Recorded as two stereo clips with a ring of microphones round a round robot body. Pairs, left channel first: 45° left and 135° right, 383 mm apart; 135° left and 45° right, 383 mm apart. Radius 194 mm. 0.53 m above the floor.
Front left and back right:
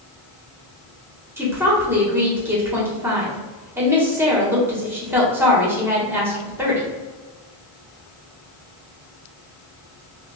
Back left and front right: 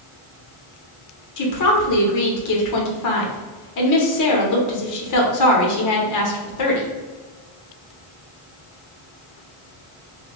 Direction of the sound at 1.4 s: 140° left.